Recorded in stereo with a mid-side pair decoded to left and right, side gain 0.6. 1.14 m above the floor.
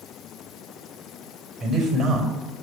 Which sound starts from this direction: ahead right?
A man speaking, at 1.6 s.